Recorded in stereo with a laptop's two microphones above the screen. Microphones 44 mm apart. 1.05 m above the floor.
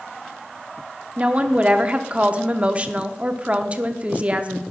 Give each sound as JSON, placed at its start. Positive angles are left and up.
{"t": 1.2, "sound": "a woman speaking", "side_deg": -30, "distance_m": 0.5}